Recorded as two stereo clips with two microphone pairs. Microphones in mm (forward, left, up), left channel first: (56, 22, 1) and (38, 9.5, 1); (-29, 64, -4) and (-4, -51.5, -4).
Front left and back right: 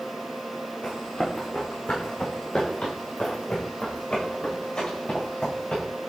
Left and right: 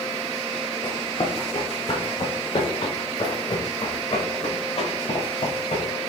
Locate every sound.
0.8 s running footsteps: 60° left, 5 m; by 5.8 s 70° left, 9 m